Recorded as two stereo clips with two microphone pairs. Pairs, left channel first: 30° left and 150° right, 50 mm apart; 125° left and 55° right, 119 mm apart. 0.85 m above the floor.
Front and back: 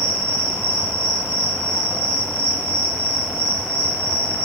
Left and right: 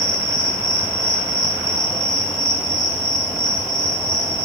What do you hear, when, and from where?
0.0 s an insect: 45° left, 1.8 m